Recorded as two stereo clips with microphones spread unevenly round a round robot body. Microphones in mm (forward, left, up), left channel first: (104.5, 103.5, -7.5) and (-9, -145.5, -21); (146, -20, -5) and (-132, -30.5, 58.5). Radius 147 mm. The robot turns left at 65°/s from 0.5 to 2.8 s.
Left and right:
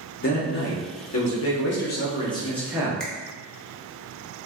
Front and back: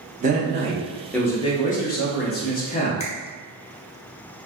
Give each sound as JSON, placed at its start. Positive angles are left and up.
{"t": 0.2, "sound": "a man speaking", "azimuth_deg": 115, "distance_m": 0.8}
{"t": 3.0, "sound": "a finger snap", "azimuth_deg": -25, "distance_m": 0.6}